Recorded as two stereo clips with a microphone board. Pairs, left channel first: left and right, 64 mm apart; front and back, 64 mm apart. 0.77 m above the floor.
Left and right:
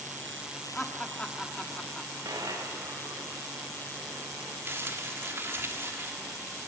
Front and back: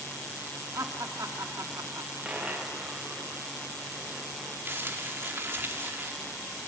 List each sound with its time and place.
0.8 s laughter: 165° left, 1.7 m
2.2 s a dropped coin: 105° right, 4 m
4.7 s crumpling: 130° right, 2 m